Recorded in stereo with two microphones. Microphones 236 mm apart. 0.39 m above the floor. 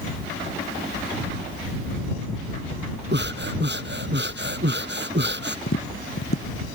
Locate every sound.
3.1 s breathing: 50° right (ahead or behind)
5.7 s tapping: 70° left (ahead or behind)